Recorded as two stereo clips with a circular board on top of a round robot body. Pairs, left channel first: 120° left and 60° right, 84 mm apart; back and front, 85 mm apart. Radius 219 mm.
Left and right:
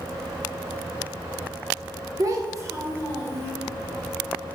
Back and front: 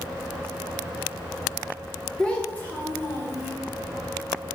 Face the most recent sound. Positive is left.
turn(degrees=-120)